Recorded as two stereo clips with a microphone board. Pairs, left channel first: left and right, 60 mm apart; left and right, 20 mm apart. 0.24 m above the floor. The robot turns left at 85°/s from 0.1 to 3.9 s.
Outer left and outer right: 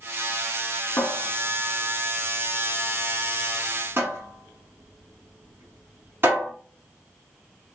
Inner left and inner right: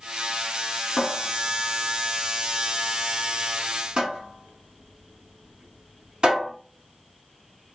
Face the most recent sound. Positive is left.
turn(degrees=-40)  # may be behind; listen again after turning